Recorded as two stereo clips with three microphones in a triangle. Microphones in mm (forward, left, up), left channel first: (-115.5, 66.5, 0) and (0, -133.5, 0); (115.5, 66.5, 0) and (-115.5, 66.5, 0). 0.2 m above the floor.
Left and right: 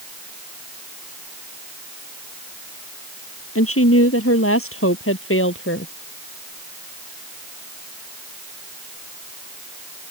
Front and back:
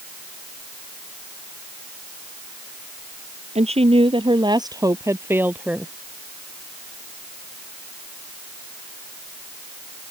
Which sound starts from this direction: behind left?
A woman speaking, at 3.5 s.